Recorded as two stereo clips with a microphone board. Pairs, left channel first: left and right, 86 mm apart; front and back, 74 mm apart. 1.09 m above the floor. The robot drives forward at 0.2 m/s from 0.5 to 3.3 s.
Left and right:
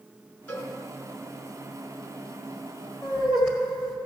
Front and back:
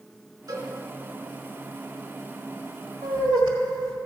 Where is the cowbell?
150° left, 1.9 m.